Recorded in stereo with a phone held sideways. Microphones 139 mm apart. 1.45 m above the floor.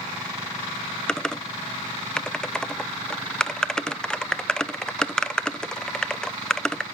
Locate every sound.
1.1 s typing on a keyboard: 5° left (ahead or behind), 0.5 m